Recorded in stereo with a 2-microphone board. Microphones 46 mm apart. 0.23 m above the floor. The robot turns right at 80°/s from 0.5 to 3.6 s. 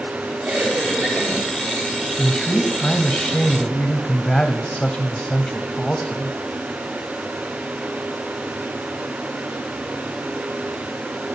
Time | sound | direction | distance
0.5 | a cough | 30° right | 3.5 m
2.2 | a man speaking | centre (ahead or behind) | 0.9 m